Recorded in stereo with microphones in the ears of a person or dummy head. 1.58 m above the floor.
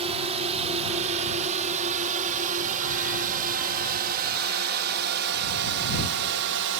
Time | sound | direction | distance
0.0 | a drone | 35° right (ahead or behind) | ?